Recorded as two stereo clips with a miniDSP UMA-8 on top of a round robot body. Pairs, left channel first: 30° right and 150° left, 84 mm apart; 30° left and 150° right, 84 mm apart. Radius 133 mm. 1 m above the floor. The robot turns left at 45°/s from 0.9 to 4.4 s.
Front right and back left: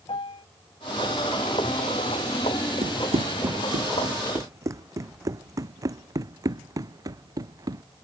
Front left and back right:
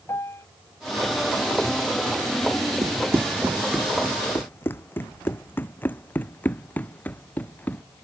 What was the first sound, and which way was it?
A piano, 30° right.